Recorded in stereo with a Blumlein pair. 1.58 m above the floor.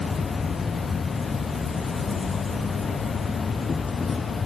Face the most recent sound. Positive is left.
turn(degrees=15)